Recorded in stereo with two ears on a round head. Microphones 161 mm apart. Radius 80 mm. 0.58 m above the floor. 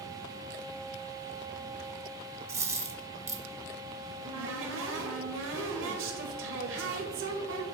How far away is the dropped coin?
About 1.0 m.